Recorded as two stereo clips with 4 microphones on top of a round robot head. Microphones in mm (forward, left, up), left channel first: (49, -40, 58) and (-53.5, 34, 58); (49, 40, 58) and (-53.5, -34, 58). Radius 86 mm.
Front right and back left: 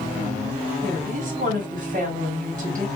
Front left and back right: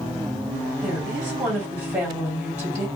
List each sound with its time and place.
0.8 s a woman speaking: 135° left, 1.7 m